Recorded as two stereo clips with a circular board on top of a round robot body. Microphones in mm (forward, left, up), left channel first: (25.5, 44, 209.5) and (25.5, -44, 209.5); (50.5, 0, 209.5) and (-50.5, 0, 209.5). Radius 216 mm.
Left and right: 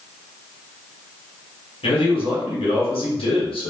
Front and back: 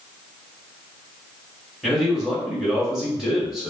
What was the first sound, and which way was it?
A man speaking, 95° left.